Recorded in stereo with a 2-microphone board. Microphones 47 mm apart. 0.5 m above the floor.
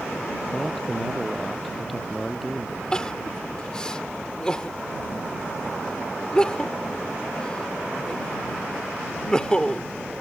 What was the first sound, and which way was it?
A man speaking, 10° left (ahead or behind).